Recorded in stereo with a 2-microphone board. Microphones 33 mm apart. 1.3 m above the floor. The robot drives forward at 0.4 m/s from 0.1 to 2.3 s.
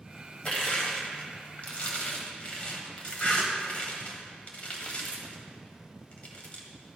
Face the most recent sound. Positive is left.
turn(degrees=45)  # may be behind; listen again after turning